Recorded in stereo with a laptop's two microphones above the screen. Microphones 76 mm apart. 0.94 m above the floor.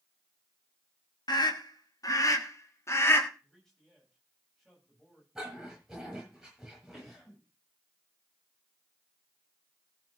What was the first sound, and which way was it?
A scream, 65° left (ahead or behind).